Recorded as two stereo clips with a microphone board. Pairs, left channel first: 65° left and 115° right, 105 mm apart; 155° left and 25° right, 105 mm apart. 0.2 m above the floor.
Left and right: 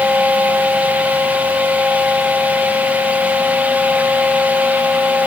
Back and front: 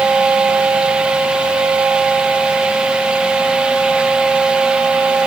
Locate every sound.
Only background noise.